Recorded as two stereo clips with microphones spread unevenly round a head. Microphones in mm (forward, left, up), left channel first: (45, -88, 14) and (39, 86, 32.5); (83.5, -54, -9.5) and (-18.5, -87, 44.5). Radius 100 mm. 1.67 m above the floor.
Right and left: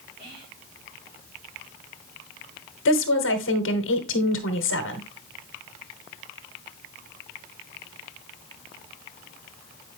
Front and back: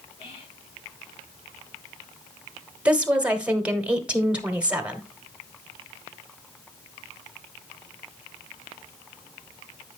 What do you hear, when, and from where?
0.2 s whispering: 55° left, 6.5 m
2.9 s a woman speaking: 85° right, 1.2 m